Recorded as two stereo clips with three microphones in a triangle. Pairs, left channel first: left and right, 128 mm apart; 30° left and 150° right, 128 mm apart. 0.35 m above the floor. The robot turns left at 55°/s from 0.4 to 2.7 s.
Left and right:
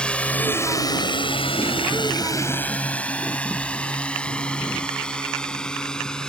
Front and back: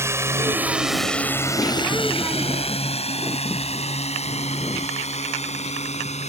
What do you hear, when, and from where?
0.0 s a drone: 165° left; by 6.3 s 5° left